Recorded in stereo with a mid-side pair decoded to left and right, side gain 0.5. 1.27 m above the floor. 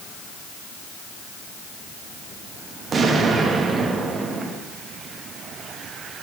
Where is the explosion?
40° right, 1.4 m.